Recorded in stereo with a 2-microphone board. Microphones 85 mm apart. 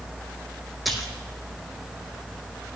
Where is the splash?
Centre (ahead or behind), 1.6 m.